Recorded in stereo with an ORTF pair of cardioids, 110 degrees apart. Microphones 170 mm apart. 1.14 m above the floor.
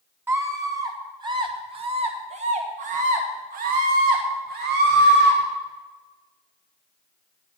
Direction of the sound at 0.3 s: 15° right.